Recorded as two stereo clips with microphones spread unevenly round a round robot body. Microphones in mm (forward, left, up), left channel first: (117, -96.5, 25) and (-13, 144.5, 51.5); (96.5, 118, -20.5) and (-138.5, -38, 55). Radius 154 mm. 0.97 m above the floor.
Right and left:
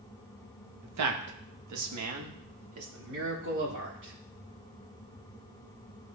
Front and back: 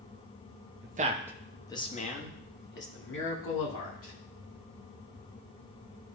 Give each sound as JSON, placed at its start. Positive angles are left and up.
{"t": 0.8, "sound": "a man speaking", "azimuth_deg": 155, "distance_m": 0.9}